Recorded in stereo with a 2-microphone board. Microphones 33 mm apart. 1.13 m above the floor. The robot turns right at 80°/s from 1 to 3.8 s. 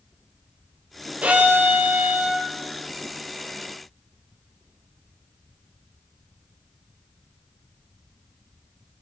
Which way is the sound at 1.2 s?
130° right.